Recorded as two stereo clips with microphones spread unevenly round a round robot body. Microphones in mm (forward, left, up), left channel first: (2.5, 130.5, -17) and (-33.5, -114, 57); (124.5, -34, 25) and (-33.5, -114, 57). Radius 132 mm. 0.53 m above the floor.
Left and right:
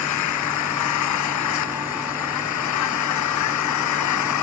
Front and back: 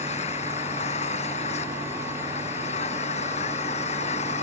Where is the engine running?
90° left.